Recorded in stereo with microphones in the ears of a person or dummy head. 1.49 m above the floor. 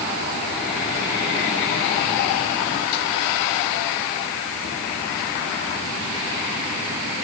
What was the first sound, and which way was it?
Only background noise.